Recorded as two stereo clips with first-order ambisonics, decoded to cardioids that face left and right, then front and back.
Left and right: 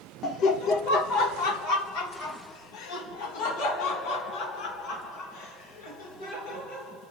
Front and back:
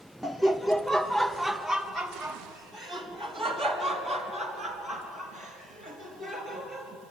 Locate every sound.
0.2 s laughter: 85° left, 0.6 m; by 6.9 s 100° left, 7.5 m